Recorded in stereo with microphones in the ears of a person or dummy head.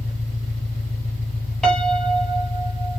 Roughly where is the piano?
Centre.